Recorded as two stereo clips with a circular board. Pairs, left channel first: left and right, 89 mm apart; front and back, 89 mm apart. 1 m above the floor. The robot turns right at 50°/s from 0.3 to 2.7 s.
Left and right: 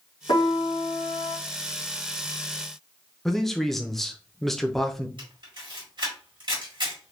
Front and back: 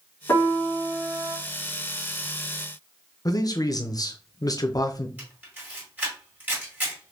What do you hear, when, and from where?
0.3 s a piano: 65° left, 1.9 m; by 1.4 s 115° left, 1.9 m
3.2 s a man speaking: 5° left, 0.5 m
5.2 s a camera shutter: 110° right, 2.0 m